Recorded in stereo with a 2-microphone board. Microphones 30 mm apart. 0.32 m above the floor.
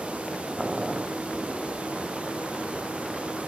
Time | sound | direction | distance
0.6 | boiling | 25° right (ahead or behind) | ?